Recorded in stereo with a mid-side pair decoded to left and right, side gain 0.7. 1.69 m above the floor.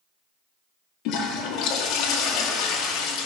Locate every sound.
1.1 s a toilet flushing: 60° left, 1.9 m